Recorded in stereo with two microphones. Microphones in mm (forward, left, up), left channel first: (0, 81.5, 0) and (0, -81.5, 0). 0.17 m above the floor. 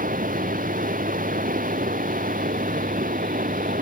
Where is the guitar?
I don't hear a guitar.